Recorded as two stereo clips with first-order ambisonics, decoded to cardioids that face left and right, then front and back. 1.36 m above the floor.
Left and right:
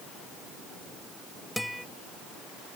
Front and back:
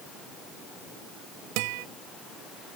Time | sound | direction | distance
1.6 | a guitar | straight behind | ?